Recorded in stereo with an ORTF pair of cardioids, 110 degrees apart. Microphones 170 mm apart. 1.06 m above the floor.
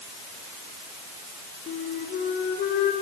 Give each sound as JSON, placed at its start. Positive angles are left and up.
{"t": 1.7, "sound": "a flute", "azimuth_deg": 65, "distance_m": 4.5}